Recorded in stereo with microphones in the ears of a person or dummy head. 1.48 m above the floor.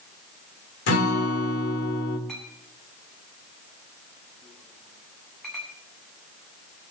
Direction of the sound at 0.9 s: 55° left (ahead or behind).